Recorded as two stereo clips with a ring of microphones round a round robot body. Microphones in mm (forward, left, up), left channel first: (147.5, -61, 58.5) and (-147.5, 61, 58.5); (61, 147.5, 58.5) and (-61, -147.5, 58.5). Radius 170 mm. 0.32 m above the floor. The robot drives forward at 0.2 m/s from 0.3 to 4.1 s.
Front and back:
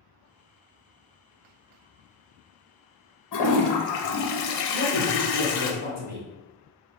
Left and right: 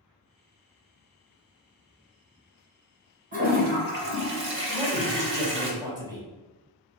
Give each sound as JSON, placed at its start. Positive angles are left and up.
{"t": 3.3, "sound": "a toilet flushing", "azimuth_deg": -45, "distance_m": 0.7}
{"t": 4.7, "sound": "a man speaking", "azimuth_deg": 180, "distance_m": 1.7}